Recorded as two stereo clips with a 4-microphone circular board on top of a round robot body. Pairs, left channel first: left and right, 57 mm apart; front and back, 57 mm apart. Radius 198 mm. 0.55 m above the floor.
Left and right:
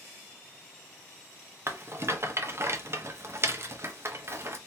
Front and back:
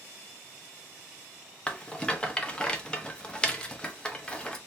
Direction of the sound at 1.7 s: 70° right.